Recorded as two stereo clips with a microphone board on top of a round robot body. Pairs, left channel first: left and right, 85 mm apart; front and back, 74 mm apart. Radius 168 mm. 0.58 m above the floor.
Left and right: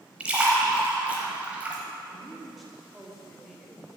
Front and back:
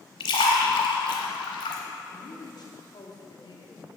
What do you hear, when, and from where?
0.2 s a splash: 15° right, 0.8 m
2.1 s a woman speaking: straight ahead, 2 m